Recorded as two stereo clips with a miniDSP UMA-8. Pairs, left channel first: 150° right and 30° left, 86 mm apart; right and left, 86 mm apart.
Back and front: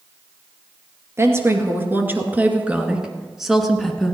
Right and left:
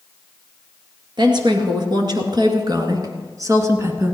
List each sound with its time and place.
1.2 s a woman speaking: 85° left, 2.5 m; by 4.2 s 135° left, 1.6 m